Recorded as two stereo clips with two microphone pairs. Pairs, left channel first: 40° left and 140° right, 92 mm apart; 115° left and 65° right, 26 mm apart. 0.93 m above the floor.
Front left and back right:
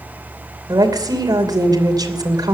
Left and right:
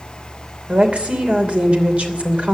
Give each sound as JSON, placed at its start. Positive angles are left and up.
{"t": 0.7, "sound": "a woman speaking", "azimuth_deg": -95, "distance_m": 3.0}